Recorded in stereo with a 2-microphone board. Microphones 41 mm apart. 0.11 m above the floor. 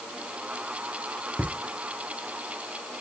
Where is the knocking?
No knocking in this recording.